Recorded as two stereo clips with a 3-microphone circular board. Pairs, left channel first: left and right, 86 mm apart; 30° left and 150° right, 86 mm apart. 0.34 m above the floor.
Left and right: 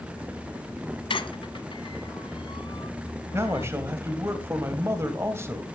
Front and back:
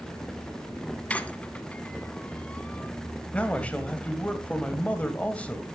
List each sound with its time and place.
1.1 s a squeak: 105° left, 0.9 m
3.3 s a man speaking: 40° right, 2 m